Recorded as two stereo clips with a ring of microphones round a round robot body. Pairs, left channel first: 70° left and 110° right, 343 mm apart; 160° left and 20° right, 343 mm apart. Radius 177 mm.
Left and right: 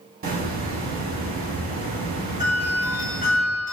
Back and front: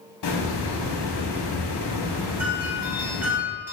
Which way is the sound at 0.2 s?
175° right.